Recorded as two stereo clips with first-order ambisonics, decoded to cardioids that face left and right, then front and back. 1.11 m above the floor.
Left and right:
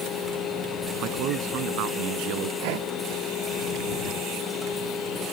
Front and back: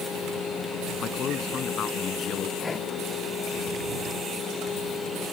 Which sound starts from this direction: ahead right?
A man speaking, at 1.0 s.